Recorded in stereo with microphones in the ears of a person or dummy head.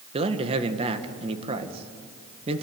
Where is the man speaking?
30° right (ahead or behind), 1.8 m.